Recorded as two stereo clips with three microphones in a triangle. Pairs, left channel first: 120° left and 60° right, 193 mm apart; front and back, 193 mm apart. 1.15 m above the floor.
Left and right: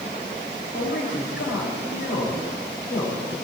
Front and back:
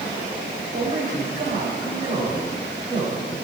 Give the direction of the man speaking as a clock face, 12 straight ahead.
8 o'clock.